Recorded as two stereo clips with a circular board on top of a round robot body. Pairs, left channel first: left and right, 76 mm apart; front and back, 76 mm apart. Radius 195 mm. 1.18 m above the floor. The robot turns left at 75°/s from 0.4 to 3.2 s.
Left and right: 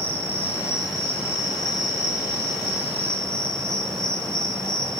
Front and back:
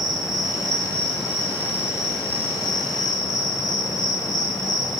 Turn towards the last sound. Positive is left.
turn(degrees=5)